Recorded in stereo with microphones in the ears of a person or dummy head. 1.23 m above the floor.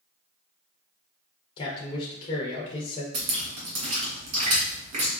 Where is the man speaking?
30° left (ahead or behind), 0.6 m.